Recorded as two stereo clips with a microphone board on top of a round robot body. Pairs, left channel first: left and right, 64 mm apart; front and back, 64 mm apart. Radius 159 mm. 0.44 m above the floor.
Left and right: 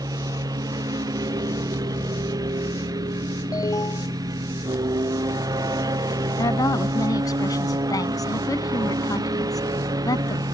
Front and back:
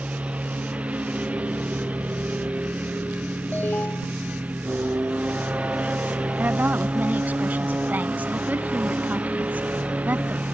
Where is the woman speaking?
115° left.